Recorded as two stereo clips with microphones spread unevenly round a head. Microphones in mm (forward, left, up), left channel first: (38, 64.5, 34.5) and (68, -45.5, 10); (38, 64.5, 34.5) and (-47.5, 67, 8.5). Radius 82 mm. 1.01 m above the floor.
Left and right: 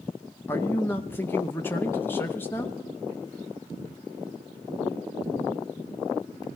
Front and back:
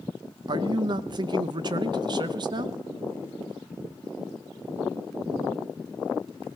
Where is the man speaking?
175° right, 0.7 m.